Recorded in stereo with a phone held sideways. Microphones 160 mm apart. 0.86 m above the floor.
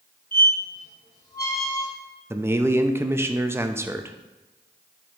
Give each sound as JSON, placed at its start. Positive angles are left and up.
{"t": 0.3, "sound": "a squeak", "side_deg": 85, "distance_m": 2.0}
{"t": 2.3, "sound": "a man speaking", "side_deg": -15, "distance_m": 0.5}